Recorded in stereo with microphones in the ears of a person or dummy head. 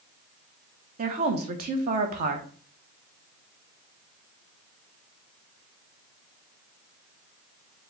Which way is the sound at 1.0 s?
45° right (ahead or behind).